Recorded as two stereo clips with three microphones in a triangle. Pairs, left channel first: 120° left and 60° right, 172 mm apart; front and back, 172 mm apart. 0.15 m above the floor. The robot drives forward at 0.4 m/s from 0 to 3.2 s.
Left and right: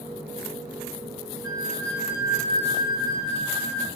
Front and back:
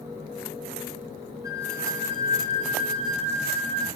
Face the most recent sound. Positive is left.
turn(degrees=130)